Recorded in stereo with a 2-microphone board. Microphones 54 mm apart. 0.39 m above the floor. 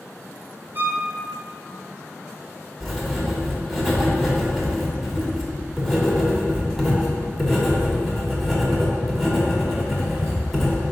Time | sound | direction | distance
0.8 | a violin | 45° right (ahead or behind) | 0.8 m
2.8 | writing | centre (ahead or behind) | 1.3 m